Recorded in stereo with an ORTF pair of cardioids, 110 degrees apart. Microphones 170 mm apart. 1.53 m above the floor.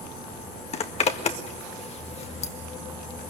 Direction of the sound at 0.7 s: 40° left.